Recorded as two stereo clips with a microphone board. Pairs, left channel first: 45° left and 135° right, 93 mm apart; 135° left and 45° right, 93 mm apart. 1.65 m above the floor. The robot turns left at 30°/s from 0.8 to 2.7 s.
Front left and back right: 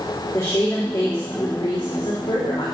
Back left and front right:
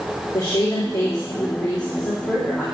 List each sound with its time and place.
0.3 s a woman speaking: 115° left, 3.5 m; by 2.6 s 60° left, 3.5 m